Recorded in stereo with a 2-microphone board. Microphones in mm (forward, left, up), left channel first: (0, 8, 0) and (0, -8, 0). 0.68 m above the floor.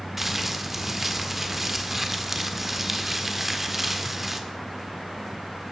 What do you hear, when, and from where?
0.2 s crumpling: 15° right (ahead or behind), 1.5 m